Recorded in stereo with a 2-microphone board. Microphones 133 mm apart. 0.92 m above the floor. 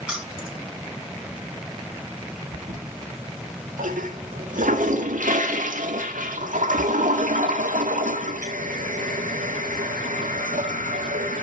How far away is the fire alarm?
No fire alarm in this recording.